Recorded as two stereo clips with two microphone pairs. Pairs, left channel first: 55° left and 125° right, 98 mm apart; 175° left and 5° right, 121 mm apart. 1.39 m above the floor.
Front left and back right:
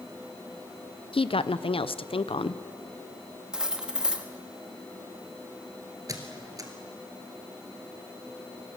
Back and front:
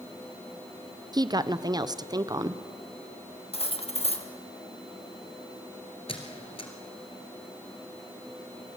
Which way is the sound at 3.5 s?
155° left.